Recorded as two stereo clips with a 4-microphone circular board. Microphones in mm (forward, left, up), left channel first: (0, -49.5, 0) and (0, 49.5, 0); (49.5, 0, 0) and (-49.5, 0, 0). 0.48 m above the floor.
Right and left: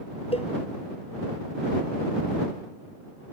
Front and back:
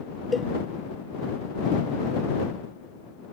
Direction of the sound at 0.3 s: 90° right.